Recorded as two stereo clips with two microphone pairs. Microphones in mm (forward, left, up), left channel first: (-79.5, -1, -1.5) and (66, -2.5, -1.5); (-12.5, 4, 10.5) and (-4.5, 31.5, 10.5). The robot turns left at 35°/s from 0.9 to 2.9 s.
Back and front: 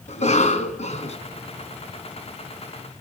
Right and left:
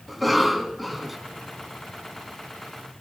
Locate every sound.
0.1 s a cough: 165° left, 1.9 m; by 1.2 s 155° left, 1.9 m